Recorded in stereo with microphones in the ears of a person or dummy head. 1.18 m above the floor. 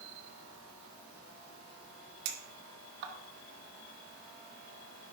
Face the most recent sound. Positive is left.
turn(degrees=-65)  # may be behind; listen again after turning